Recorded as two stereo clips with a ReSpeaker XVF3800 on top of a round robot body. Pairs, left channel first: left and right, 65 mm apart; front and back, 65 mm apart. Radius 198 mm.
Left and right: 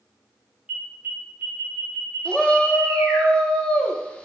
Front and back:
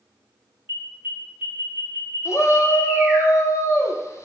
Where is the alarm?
145° right, 2.5 m.